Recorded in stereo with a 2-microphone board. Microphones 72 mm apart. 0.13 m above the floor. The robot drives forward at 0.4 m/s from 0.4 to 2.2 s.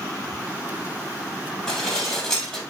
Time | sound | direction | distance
1.7 | dishes clattering | 10° left (ahead or behind) | 2.5 m